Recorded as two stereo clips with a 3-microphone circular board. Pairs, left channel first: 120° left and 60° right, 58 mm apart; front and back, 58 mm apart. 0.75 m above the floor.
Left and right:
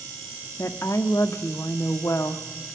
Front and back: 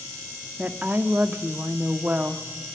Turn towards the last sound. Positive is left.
turn(degrees=125)